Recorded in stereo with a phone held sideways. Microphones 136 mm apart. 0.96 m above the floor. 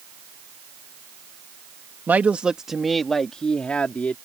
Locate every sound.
2.1 s a woman speaking: 15° right (ahead or behind); by 4.2 s 10° left (ahead or behind)